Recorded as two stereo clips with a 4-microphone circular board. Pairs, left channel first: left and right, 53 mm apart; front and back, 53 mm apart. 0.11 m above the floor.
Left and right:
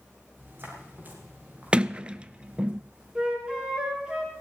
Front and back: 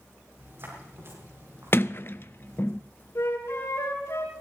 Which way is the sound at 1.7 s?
25° right.